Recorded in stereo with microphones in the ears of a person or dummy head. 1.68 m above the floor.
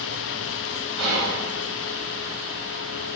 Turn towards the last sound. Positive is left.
turn(degrees=-85)